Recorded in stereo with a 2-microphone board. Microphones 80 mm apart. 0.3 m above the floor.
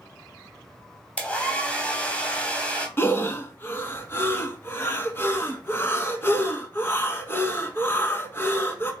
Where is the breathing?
30° left (ahead or behind), 0.7 m.